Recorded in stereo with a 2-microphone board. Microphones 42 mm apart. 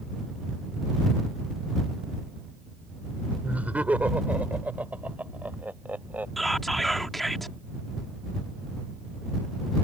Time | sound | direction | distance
3.4 | laughter | 40° right (ahead or behind) | ?
6.4 | whispering | 5° left (ahead or behind) | ?